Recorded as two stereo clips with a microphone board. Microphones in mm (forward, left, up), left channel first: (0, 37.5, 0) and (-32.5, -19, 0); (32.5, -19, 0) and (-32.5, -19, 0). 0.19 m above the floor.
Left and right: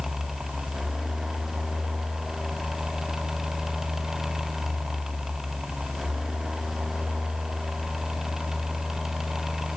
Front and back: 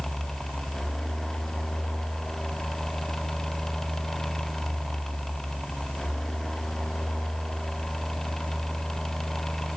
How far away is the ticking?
No ticking in this recording.